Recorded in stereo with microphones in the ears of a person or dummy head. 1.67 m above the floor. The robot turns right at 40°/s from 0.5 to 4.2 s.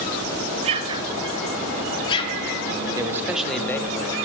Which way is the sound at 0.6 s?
35° right (ahead or behind).